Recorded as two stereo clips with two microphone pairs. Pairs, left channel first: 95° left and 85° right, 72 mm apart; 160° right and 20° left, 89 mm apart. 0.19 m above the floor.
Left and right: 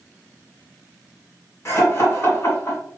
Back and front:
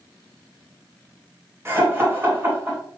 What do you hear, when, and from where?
1.6 s laughter: 70° left, 1.9 m